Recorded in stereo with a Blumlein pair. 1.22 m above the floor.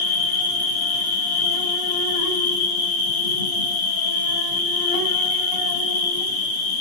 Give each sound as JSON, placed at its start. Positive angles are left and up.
{"t": 0.0, "sound": "an insect", "azimuth_deg": 65, "distance_m": 1.1}